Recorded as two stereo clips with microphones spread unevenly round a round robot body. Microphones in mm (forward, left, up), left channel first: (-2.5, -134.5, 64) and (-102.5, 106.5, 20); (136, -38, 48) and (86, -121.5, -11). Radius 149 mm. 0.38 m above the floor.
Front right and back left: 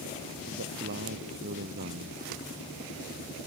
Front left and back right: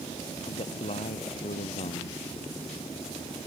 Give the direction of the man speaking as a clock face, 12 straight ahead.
10 o'clock.